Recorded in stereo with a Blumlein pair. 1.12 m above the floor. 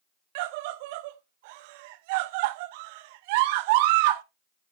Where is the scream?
50° right, 0.7 m.